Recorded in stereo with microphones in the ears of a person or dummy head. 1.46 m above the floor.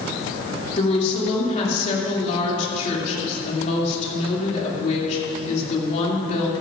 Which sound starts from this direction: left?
A woman speaking, at 0.8 s.